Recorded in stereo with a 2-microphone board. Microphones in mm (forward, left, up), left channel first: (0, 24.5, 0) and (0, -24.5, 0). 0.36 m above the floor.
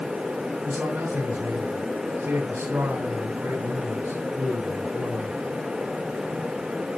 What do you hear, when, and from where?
0.6 s a man speaking: 60° right (ahead or behind), 3 m